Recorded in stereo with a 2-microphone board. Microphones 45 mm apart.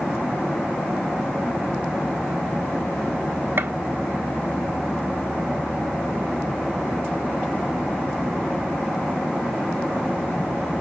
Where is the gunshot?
55° right (ahead or behind), 1.5 m.